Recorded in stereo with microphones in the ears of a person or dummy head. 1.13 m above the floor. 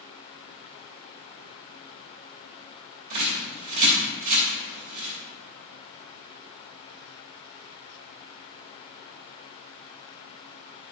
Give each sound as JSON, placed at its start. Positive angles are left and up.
{"t": 3.1, "sound": "a bird", "side_deg": -50, "distance_m": 2.5}